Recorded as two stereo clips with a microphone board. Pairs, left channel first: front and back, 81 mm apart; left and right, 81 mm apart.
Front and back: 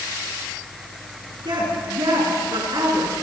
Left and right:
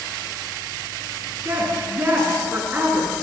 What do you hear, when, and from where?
1.4 s a woman speaking: 155° right, 8 m